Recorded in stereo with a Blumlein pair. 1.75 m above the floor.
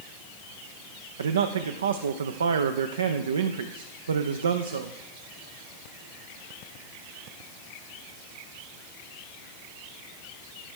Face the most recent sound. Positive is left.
turn(degrees=-65)